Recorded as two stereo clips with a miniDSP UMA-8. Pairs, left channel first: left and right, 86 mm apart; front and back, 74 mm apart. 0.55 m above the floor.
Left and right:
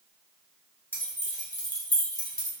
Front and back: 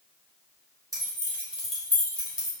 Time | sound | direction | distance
0.9 | keys jangling | 150° left | 1.1 m